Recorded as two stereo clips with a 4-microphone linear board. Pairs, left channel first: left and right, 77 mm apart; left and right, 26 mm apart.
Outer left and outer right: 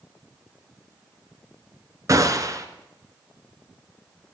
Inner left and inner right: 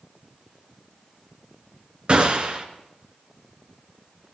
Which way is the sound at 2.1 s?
45° right (ahead or behind).